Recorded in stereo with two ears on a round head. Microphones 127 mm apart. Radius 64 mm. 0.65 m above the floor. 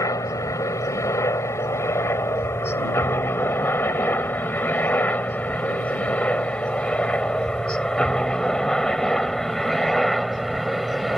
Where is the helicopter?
25° left (ahead or behind); by 11.2 s centre (ahead or behind).